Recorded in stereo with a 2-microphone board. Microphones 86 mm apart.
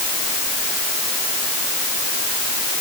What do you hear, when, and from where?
Only background noise.